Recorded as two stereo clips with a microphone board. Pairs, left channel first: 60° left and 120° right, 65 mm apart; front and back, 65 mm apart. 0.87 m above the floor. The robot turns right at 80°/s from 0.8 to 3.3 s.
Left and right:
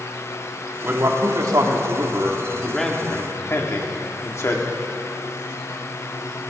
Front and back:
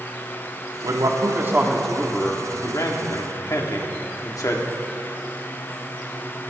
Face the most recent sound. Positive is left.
turn(degrees=20)